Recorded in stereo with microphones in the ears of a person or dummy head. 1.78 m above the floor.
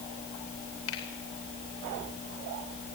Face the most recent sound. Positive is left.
turn(degrees=75)  # may be behind; listen again after turning